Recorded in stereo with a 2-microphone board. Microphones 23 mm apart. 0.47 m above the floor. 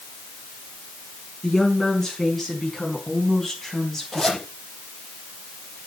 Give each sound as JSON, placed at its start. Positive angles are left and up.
{"t": 1.4, "sound": "a woman speaking", "side_deg": 10, "distance_m": 6.0}
{"t": 4.1, "sound": "a zipper", "side_deg": 10, "distance_m": 6.0}